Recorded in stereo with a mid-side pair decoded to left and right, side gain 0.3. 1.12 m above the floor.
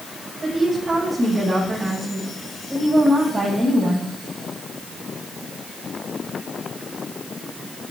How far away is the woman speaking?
About 7 m.